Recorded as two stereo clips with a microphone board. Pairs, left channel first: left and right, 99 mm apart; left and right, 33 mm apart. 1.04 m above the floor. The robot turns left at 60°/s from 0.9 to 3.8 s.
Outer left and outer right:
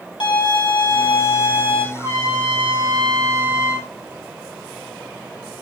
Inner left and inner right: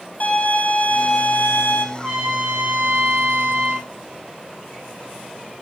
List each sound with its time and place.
0.2 s a violin: 125° left, 3.5 m; by 1.9 s 65° left, 3.5 m
1.9 s a trumpet: 25° right, 5 m; by 3.9 s 140° right, 5 m